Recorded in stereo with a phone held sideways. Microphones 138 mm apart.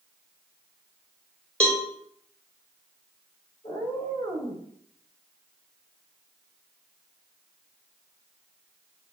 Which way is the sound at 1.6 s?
10° left (ahead or behind).